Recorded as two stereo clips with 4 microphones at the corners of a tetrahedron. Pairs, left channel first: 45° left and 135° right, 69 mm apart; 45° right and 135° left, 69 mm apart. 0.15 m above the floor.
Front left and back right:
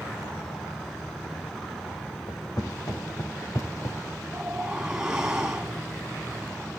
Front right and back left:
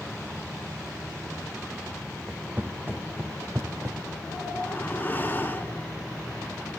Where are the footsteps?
70° left, 2 m; by 4.0 s 95° left, 1.6 m.